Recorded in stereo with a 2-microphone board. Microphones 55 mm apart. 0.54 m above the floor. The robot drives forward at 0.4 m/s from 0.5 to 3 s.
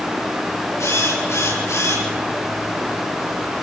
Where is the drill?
70° left (ahead or behind), 8.5 m.